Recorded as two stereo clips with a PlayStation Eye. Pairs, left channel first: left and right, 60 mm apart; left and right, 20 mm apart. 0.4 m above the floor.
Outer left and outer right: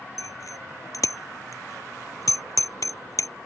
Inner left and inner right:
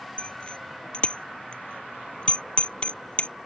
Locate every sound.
0.2 s a bicycle bell: 65° left (ahead or behind)